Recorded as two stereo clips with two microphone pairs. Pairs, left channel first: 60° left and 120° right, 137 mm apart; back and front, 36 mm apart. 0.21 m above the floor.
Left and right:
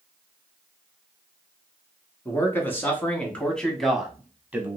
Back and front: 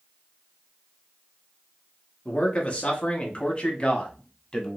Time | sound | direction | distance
2.2 | a man speaking | 130° left | 1.8 m